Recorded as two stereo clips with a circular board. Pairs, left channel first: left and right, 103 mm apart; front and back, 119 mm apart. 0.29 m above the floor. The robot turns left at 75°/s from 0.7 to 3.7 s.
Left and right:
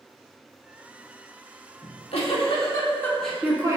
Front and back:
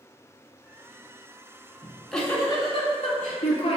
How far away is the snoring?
I don't hear snoring.